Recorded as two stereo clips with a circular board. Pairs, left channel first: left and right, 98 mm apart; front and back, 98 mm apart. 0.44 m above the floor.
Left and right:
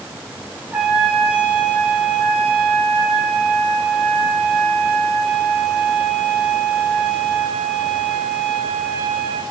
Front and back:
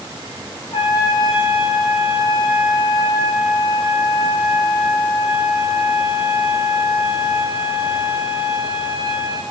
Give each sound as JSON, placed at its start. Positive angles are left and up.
{"t": 0.7, "sound": "a trumpet", "azimuth_deg": -20, "distance_m": 5.0}